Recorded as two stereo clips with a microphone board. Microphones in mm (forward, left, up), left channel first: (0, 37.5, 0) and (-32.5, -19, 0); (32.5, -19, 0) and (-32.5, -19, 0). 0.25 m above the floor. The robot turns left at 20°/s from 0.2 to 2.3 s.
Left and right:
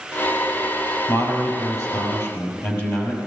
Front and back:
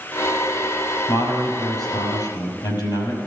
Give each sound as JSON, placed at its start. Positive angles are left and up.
{"t": 1.1, "sound": "a man speaking", "azimuth_deg": 35, "distance_m": 6.0}